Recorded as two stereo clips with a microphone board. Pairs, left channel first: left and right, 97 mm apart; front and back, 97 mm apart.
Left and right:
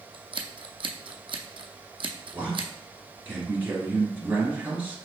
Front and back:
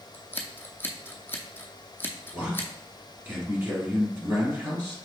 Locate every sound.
0.1 s scissors: 65° right, 0.7 m
2.3 s a man speaking: 145° right, 1.5 m